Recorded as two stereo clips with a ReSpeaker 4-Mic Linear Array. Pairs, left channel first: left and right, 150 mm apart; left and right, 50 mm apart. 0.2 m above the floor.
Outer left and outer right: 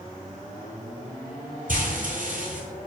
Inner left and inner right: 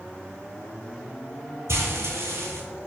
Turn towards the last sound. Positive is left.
turn(degrees=-65)  # may be behind; listen again after turning